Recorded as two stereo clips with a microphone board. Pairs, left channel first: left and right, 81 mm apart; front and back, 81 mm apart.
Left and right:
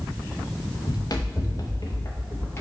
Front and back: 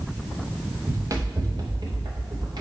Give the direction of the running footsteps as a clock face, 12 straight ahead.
8 o'clock.